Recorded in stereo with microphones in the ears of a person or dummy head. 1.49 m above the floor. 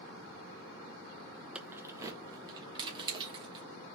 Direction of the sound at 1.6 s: 5° right (ahead or behind).